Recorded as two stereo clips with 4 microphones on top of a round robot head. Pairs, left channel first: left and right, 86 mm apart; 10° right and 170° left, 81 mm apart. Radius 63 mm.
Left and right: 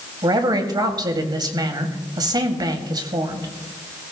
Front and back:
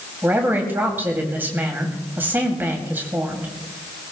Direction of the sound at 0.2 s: 125° right.